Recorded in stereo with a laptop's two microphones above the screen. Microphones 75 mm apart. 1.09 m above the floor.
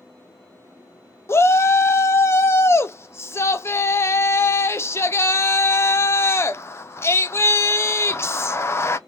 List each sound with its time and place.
1.3 s a shout: 35° left (ahead or behind), 0.5 m